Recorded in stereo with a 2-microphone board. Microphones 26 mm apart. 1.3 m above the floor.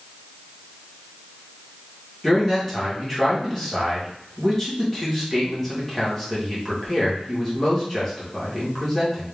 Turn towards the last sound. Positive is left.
turn(degrees=10)  # may be behind; listen again after turning